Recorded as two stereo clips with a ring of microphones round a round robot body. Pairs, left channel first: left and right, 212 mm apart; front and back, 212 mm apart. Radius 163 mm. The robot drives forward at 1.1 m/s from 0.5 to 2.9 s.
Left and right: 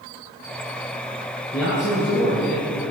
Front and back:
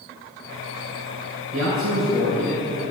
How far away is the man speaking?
About 5.5 m.